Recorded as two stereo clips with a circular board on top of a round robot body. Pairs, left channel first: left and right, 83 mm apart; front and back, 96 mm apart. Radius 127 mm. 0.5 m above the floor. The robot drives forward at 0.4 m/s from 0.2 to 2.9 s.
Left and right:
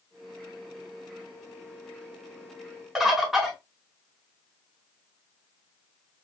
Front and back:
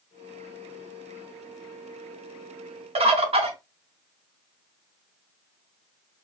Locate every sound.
3.0 s a bird: 175° right, 0.7 m